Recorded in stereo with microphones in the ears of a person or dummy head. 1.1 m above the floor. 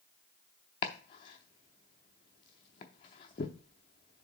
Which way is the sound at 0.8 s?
20° left (ahead or behind).